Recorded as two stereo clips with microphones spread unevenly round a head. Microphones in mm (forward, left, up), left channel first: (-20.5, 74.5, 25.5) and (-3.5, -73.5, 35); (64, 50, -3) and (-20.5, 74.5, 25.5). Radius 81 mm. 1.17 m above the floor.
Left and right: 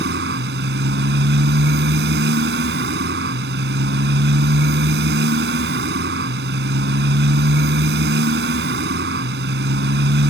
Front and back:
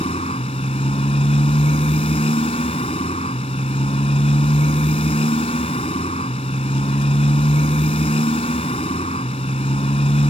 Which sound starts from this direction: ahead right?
A motorcycle, at 0.0 s.